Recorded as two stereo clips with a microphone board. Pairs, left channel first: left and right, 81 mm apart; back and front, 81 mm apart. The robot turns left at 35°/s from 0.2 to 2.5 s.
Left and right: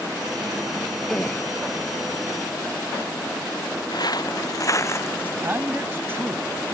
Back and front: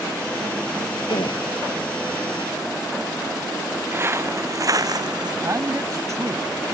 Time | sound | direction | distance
1.1 | a gasp | 175° left | ?
3.9 | footsteps | 60° left | ?
5.4 | a man speaking | 35° right | ?